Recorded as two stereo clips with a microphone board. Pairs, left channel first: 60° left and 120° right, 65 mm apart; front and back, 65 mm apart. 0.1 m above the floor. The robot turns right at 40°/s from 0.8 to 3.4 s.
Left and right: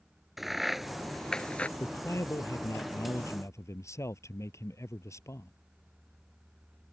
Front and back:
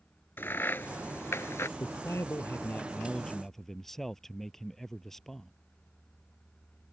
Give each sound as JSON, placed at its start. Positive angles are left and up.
{"t": 0.4, "sound": "a crack", "azimuth_deg": -35}
{"t": 1.8, "sound": "a man speaking", "azimuth_deg": 20}